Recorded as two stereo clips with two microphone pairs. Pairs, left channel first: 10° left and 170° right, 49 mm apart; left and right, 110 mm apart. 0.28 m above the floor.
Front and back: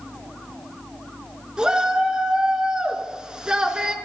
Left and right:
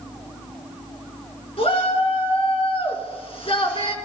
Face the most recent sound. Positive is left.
turn(degrees=120)